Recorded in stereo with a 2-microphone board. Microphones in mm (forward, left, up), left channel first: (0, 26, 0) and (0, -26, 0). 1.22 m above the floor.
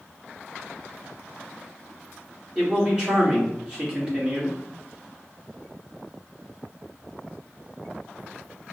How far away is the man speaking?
About 1.8 m.